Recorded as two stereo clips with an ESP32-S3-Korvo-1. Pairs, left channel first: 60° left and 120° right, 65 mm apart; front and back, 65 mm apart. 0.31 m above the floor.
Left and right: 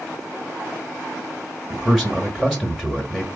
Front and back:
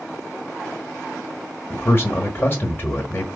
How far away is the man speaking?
About 1.1 m.